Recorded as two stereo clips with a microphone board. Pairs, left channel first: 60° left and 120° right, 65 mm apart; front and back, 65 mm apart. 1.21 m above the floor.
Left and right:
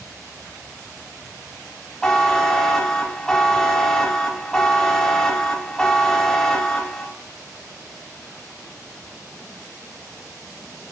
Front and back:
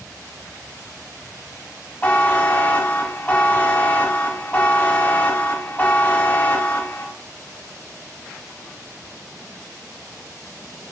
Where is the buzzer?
5° right, 0.6 m.